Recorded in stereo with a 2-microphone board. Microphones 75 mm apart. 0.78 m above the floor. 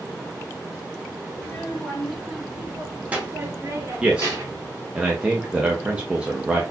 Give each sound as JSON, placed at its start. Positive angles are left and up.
{"t": 1.3, "sound": "a child speaking", "side_deg": 10, "distance_m": 2.0}
{"t": 4.0, "sound": "a man speaking", "side_deg": -15, "distance_m": 0.6}